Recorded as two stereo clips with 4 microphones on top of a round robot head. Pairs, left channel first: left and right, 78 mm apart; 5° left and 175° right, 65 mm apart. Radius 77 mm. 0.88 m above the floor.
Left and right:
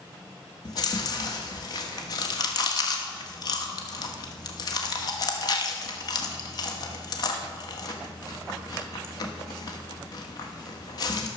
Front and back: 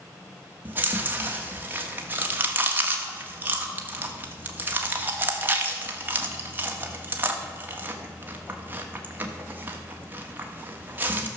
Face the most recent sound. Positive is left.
turn(degrees=125)